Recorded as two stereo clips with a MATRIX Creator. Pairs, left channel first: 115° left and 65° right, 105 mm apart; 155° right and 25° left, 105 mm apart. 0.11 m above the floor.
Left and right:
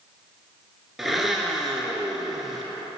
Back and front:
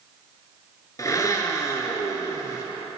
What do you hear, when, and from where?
1.0 s a blender: 155° right, 0.8 m